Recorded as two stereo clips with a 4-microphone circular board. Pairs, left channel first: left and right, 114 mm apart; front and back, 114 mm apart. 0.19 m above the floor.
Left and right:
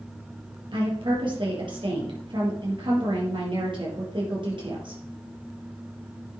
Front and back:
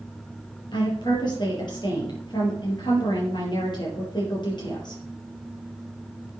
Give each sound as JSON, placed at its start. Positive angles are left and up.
{"t": 0.7, "sound": "a woman speaking", "azimuth_deg": -50, "distance_m": 5.5}